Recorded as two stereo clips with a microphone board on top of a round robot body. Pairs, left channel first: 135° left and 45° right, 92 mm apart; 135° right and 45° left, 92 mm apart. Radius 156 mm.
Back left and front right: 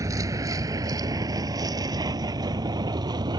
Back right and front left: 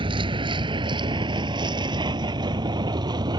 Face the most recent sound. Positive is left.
turn(degrees=0)